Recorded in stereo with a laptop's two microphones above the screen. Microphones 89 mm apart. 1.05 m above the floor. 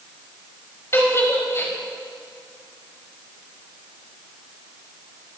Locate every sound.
0.9 s a giggle: 30° left (ahead or behind), 5.5 m